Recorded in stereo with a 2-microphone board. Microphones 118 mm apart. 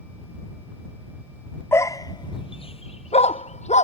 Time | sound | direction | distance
1.7 | a dog barking | 20° left (ahead or behind) | ?